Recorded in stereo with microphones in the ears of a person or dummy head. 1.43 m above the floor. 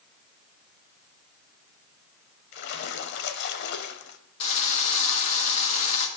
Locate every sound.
2.5 s a splash: 60° left (ahead or behind), 0.9 m
4.4 s a drill: 40° left (ahead or behind), 1.6 m